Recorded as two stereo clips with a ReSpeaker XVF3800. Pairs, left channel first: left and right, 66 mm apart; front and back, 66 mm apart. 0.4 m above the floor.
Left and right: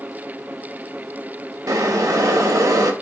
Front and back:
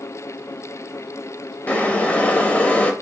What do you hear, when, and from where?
1.7 s boiling: 65° right, 0.5 m